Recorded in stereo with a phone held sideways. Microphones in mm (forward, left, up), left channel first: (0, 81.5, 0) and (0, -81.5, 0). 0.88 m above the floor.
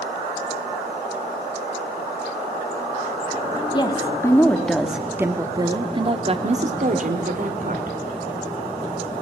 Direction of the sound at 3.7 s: 25° left (ahead or behind).